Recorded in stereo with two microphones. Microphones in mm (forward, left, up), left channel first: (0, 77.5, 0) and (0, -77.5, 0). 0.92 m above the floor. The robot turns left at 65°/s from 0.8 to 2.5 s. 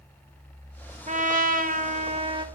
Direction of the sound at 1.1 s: 60° right.